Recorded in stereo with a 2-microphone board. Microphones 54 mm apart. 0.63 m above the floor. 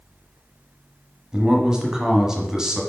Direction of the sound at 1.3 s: 10° right (ahead or behind).